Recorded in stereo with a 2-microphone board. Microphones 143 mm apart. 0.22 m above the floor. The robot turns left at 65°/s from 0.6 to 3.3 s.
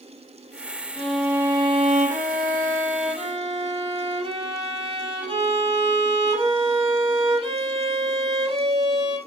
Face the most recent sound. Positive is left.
turn(degrees=-140)